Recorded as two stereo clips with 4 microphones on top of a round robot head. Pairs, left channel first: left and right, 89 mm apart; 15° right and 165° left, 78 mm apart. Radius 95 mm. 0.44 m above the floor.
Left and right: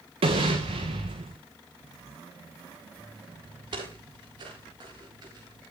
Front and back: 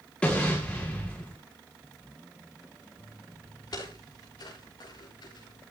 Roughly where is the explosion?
Right.